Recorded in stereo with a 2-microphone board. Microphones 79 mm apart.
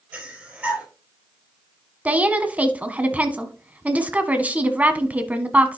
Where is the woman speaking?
20° right (ahead or behind), 1.0 m.